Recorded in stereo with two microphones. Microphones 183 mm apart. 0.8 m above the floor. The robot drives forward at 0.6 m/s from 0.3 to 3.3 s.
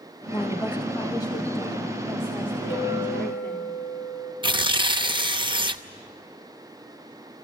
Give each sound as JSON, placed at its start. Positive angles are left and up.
{"t": 0.3, "sound": "a woman speaking", "side_deg": 25, "distance_m": 1.0}
{"t": 2.7, "sound": "a clink", "side_deg": 85, "distance_m": 6.0}
{"t": 4.4, "sound": "tearing paper", "side_deg": -25, "distance_m": 0.7}